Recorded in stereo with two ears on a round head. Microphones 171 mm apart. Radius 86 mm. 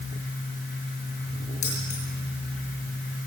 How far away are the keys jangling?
About 8 m.